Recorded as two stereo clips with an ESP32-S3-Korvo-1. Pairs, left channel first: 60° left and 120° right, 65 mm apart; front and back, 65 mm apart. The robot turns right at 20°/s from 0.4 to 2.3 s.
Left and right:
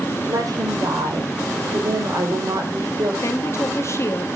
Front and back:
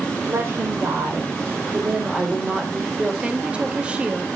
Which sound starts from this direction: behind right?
A woman speaking, at 0.3 s.